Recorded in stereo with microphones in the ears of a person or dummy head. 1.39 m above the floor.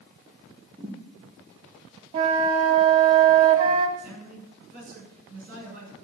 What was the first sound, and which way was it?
A thud, 25° right (ahead or behind).